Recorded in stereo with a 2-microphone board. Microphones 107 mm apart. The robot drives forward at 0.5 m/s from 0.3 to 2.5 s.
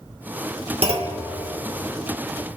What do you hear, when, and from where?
0.8 s a clunk: 65° right (ahead or behind), 1.2 m; by 1.2 s 60° right (ahead or behind), 1.3 m